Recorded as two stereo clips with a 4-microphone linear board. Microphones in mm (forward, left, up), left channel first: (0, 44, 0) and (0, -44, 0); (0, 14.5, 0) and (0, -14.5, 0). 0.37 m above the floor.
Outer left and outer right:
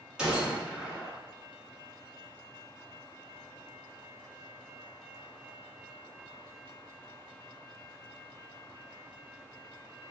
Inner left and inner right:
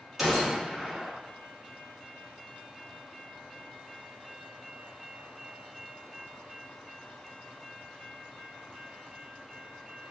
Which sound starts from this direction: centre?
A gunshot, at 0.2 s.